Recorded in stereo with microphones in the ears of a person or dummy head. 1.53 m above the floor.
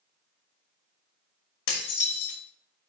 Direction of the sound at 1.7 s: 65° left (ahead or behind).